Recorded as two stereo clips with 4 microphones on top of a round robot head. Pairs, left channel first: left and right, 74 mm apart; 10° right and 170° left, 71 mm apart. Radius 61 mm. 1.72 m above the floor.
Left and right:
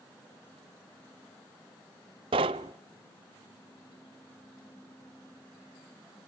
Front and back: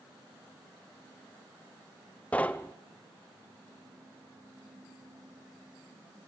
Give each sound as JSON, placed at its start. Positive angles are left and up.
{"t": 2.3, "sound": "knocking", "azimuth_deg": -90, "distance_m": 0.6}